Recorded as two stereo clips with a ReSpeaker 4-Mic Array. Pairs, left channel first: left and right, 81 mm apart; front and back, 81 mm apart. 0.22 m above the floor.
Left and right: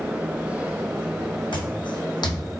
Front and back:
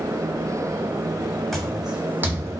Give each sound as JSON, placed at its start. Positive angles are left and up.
{"t": 1.5, "sound": "footsteps", "azimuth_deg": 85, "distance_m": 0.8}